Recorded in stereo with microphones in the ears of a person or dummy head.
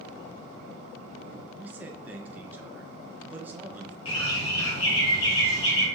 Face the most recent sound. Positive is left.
turn(degrees=30)  # may be behind; listen again after turning